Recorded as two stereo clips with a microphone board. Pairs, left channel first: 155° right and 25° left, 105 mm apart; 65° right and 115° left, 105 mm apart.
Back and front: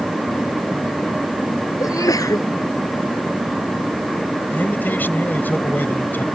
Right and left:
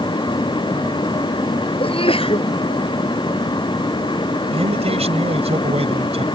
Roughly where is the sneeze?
Right.